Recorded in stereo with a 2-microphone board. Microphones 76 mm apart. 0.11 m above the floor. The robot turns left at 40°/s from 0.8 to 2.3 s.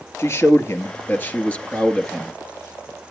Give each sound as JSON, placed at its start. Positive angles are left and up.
{"t": 0.2, "sound": "a man speaking", "azimuth_deg": 55, "distance_m": 1.7}